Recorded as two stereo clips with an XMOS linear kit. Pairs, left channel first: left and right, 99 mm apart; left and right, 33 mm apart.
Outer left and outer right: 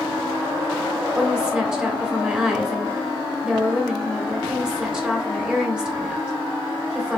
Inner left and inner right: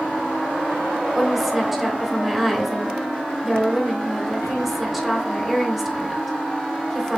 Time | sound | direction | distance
1.1 | a woman speaking | 10° right (ahead or behind) | 1.0 m